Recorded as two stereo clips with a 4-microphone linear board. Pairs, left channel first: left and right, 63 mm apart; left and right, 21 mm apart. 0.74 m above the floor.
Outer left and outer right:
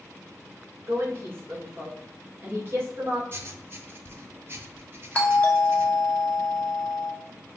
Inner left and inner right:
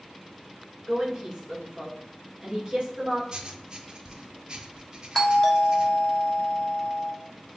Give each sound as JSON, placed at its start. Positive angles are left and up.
{"t": 0.9, "sound": "a woman speaking", "side_deg": -40, "distance_m": 2.5}
{"t": 3.3, "sound": "writing", "side_deg": -40, "distance_m": 0.7}
{"t": 5.2, "sound": "a doorbell", "side_deg": 20, "distance_m": 1.2}